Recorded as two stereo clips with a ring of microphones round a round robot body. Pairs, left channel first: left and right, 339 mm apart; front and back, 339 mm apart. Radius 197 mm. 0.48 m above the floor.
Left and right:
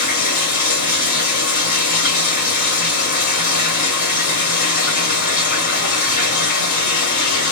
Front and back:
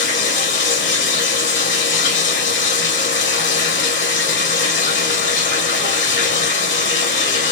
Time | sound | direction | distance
0.0 | running water | 55° left | 1.6 m